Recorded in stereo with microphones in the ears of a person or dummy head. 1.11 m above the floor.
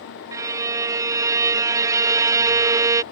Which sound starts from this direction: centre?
A violin, at 0.3 s.